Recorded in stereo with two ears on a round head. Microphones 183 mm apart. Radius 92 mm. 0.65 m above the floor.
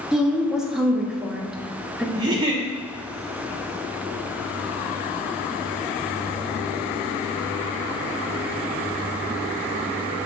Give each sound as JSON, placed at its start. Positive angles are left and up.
{"t": 0.1, "sound": "a woman speaking", "side_deg": -5, "distance_m": 0.6}
{"t": 2.1, "sound": "a giggle", "side_deg": -20, "distance_m": 0.7}